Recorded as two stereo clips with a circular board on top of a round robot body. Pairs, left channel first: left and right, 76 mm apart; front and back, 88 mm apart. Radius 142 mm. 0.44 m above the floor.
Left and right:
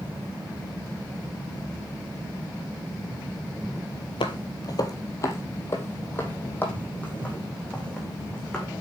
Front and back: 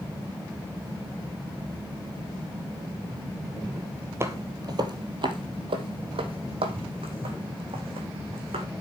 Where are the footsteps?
115° left, 0.8 m; by 8.7 s 170° left, 2.5 m.